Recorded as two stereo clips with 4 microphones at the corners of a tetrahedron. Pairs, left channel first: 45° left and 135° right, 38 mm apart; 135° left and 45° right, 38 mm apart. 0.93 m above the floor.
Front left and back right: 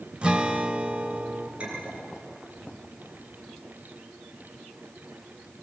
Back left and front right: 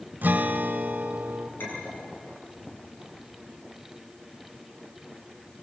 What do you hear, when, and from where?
0.2 s a guitar: 80° right, 1.5 m
1.6 s a clink: 165° left, 10 m